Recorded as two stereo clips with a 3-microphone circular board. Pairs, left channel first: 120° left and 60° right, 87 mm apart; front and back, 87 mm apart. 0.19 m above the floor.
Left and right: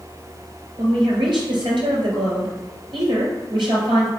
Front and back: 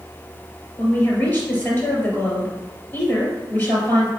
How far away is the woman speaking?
About 3.5 m.